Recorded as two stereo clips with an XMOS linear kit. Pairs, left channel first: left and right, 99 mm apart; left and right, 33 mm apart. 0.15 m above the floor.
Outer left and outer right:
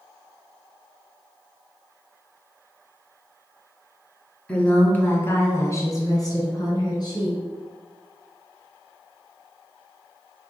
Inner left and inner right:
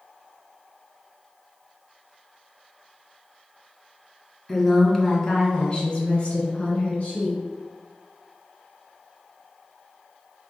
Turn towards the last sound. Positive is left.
turn(degrees=45)  # may be behind; listen again after turning